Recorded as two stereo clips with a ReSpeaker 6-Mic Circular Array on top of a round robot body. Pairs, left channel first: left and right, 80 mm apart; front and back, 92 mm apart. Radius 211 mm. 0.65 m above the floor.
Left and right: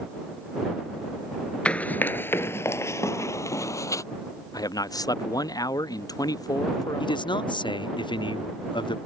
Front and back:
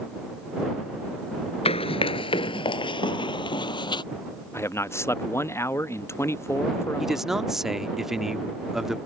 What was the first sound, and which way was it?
Running footsteps, 15° left.